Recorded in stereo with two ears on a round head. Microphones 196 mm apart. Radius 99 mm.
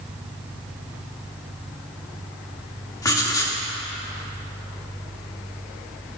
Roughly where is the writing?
Centre.